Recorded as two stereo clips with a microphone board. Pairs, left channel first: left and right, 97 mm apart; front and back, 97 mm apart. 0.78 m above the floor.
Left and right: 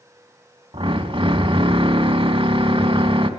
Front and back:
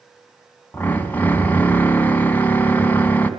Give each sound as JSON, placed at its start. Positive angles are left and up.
{"t": 0.7, "sound": "a drill", "azimuth_deg": -70, "distance_m": 3.0}